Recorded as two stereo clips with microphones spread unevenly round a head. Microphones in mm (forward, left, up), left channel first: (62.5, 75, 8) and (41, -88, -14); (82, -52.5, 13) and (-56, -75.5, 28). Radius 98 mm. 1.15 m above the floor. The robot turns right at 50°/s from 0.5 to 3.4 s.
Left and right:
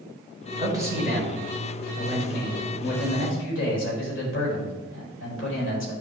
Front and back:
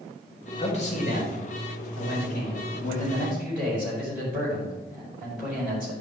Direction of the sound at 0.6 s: 35° right.